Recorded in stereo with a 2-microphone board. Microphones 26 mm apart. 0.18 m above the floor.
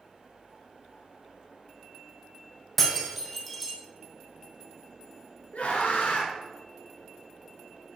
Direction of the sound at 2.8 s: Centre (ahead or behind).